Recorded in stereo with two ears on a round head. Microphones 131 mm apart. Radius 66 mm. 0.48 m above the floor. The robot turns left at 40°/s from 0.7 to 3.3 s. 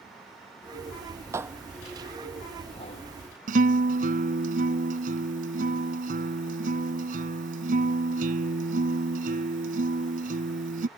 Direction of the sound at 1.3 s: 20° right (ahead or behind).